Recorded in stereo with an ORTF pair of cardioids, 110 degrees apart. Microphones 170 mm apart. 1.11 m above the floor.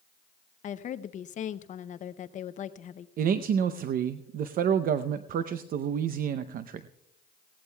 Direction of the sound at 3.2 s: 55° right.